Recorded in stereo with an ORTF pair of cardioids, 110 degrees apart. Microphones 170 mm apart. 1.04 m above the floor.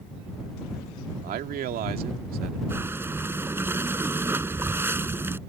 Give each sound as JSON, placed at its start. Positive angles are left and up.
{"t": 1.2, "sound": "a man speaking", "azimuth_deg": -65}
{"t": 2.7, "sound": "breathing", "azimuth_deg": -15}